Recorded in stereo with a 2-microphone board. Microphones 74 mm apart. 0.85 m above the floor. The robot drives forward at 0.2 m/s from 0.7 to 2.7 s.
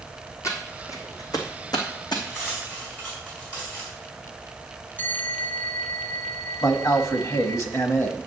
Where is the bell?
25° left (ahead or behind), 1.3 m.